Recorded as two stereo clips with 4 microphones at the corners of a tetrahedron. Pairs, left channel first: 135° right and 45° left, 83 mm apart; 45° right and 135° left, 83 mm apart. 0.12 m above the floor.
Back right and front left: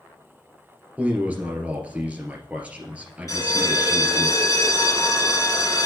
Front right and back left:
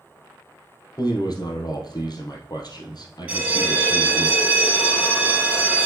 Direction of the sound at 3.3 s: 160° right.